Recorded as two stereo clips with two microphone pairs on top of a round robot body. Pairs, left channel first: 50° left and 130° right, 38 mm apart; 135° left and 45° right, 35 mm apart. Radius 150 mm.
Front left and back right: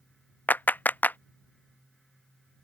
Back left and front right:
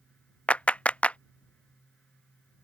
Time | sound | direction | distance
0.5 | a clap | 90° left | ?